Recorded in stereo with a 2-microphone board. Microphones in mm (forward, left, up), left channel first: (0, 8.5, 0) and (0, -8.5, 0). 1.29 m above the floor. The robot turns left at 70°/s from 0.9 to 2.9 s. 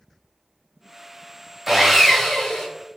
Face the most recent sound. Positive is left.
turn(degrees=115)